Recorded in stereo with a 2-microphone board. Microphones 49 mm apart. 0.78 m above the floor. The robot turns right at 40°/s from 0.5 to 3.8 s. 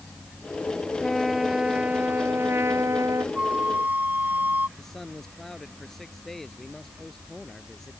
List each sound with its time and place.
1.0 s a trumpet: 170° left; by 3.2 s 100° right
3.4 s a flute: 20° right (ahead or behind); by 4.7 s 40° right (ahead or behind)
4.8 s a man speaking: 5° left (ahead or behind)